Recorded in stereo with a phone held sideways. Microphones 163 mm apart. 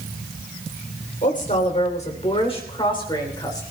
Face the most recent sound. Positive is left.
turn(degrees=20)  # may be behind; listen again after turning